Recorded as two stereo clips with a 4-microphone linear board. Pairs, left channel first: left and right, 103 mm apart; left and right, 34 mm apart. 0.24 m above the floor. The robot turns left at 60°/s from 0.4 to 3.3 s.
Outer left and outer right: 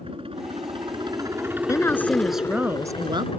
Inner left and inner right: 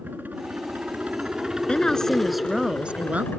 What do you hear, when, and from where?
0.0 s a helicopter: 90° right; by 3.4 s 95° left
1.7 s a woman speaking: 35° left; by 3.3 s 60° right